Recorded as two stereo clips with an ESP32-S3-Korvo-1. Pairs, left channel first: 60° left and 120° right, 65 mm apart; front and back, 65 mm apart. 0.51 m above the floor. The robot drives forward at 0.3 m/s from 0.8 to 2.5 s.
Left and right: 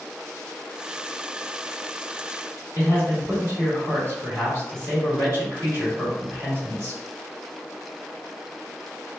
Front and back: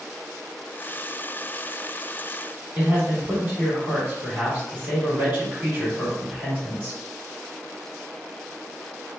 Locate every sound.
2.8 s a man speaking: 135° right, 1.6 m